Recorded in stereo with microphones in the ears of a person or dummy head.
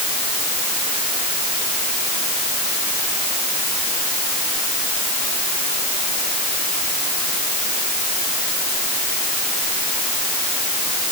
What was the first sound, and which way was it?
Only background noise.